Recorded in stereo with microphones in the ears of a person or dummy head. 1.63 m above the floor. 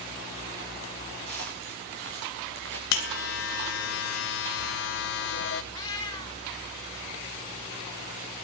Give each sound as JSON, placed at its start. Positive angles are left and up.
{"t": 1.3, "sound": "footsteps", "side_deg": -60, "distance_m": 6.0}
{"t": 2.9, "sound": "a buzzer", "side_deg": 60, "distance_m": 1.2}
{"t": 5.7, "sound": "a cat meowing", "side_deg": 20, "distance_m": 2.0}